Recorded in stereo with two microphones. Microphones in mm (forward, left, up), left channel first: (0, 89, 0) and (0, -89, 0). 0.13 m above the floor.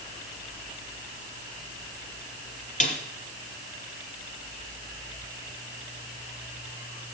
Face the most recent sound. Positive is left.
turn(degrees=40)  # may be behind; listen again after turning